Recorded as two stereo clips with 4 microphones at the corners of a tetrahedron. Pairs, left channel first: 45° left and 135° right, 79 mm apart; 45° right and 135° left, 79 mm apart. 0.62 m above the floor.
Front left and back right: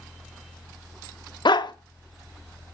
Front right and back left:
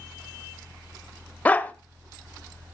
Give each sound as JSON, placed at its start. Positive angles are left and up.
{"t": 1.4, "sound": "a dog barking", "azimuth_deg": 25, "distance_m": 0.9}